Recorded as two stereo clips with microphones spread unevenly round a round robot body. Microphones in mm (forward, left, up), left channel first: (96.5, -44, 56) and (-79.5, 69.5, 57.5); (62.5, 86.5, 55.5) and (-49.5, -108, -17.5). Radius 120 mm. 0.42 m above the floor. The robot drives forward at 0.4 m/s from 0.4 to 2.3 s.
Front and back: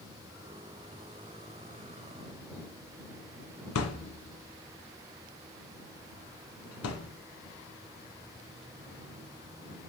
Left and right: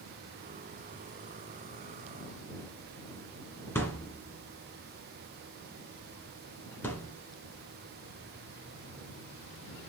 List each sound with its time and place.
3.8 s a thud: 20° right, 1.4 m